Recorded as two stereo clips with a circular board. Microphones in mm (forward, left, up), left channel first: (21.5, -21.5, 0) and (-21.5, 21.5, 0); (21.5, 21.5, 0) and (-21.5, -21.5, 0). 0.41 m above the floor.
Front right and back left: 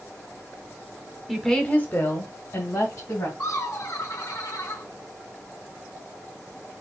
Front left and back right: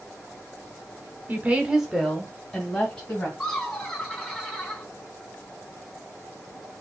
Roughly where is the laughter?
Ahead right.